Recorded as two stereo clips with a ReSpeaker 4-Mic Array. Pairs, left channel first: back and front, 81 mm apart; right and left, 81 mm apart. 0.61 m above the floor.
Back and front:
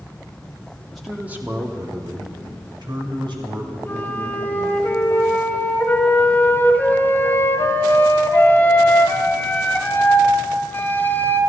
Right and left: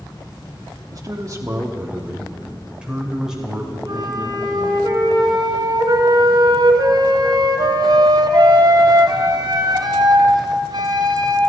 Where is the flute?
115° left, 1.3 m.